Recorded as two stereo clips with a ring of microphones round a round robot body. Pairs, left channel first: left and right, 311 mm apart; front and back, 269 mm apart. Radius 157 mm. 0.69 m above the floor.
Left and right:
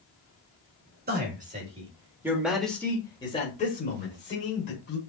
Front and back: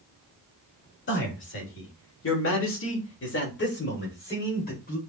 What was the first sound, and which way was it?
A man speaking, 35° right.